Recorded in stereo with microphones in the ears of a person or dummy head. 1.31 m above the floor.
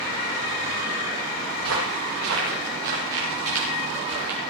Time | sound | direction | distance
1.6 | footsteps | 75° right (ahead or behind) | 9 m